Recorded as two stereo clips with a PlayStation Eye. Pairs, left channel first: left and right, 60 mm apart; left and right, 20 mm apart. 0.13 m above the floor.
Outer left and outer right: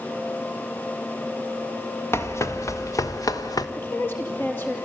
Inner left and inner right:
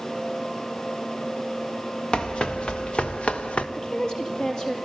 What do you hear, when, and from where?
2.1 s running footsteps: 45° left (ahead or behind), 1.6 m; by 3.7 s 85° left, 1.5 m
3.8 s a woman speaking: 35° left (ahead or behind), 3 m